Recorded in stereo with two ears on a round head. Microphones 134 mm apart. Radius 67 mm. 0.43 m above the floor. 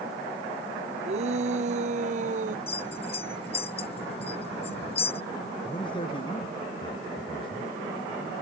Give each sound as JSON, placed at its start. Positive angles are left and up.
{"t": 1.1, "sound": "a shout", "side_deg": -45}
{"t": 2.7, "sound": "a bell", "side_deg": 40}
{"t": 5.7, "sound": "a man speaking", "side_deg": 35}